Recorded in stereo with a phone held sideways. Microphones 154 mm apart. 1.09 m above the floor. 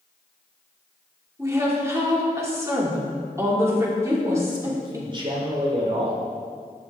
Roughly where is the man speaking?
Right.